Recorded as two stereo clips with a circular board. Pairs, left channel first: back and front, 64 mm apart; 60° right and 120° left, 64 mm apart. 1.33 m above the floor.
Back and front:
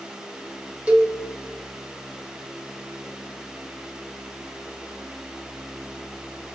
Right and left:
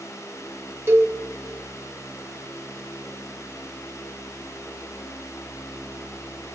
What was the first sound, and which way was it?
A cowbell, 70° left.